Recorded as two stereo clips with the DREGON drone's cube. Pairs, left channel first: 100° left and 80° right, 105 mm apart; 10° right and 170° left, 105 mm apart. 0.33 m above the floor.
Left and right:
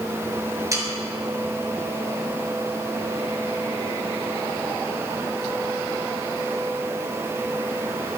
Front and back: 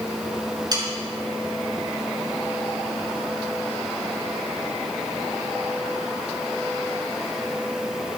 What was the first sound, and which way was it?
Sawing, 140° right.